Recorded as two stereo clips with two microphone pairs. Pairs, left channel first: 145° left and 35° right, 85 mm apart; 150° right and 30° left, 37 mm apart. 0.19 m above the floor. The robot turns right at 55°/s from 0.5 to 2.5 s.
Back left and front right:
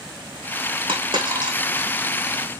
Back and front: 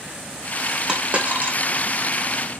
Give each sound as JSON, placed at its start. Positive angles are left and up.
{"t": 0.9, "sound": "a dropped coin", "azimuth_deg": -35, "distance_m": 5.0}